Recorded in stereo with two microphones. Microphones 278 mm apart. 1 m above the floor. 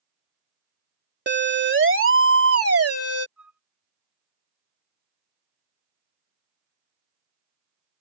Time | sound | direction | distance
1.3 | a siren | 40° right (ahead or behind) | ?
3.4 | a flute | 65° left (ahead or behind) | ?